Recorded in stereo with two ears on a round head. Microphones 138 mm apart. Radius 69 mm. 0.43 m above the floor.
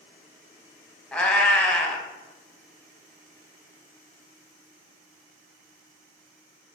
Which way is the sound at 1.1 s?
5° left (ahead or behind).